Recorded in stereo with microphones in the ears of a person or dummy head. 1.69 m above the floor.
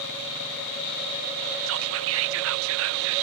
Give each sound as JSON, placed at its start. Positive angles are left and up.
{"t": 1.7, "sound": "whispering", "side_deg": -75}